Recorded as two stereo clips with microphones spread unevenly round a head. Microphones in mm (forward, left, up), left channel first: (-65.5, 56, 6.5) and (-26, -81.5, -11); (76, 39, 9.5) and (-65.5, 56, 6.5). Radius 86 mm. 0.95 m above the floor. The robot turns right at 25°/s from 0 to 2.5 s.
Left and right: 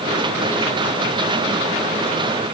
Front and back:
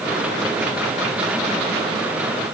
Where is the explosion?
I don't hear an explosion.